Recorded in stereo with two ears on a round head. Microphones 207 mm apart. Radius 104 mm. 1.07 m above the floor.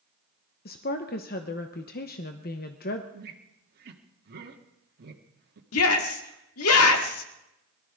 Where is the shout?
70° left (ahead or behind), 2 m.